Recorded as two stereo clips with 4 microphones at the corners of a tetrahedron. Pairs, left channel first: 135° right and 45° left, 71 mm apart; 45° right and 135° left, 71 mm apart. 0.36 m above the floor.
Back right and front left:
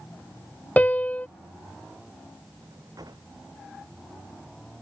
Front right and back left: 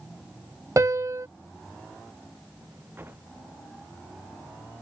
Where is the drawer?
75° left.